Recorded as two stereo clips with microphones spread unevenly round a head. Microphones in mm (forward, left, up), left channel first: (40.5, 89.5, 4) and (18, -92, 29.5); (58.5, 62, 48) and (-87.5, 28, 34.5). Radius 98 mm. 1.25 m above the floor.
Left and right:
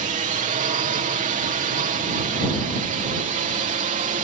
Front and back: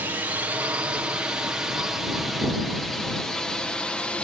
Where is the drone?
105° right; by 4.2 s 70° right.